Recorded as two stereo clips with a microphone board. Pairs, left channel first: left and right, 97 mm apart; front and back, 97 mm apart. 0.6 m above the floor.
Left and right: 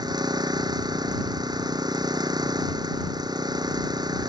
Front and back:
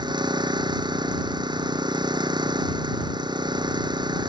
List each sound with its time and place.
0.0 s an engine running: 135° right